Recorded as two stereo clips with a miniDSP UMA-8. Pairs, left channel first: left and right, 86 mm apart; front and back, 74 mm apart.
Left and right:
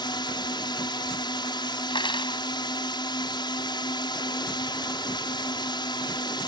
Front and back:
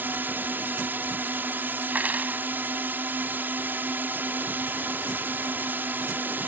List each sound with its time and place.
0.0 s a drone: 120° left
1.9 s cutlery clinking: 110° left